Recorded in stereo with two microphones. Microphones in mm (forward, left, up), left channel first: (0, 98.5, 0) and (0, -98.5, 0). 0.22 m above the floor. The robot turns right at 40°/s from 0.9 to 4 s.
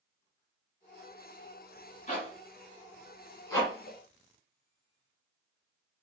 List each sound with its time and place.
2.1 s a zipper: 30° left (ahead or behind), 1.2 m; by 4.0 s 10° left (ahead or behind), 1.2 m